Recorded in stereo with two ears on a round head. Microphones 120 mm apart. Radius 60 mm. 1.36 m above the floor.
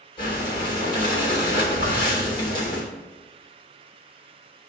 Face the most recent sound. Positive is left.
turn(degrees=35)  # may be behind; listen again after turning